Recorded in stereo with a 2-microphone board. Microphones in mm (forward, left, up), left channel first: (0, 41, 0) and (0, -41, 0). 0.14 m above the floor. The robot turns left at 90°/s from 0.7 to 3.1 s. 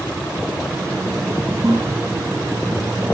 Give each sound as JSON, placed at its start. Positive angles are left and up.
{"t": 1.6, "sound": "a toilet flushing", "side_deg": -5, "distance_m": 5.5}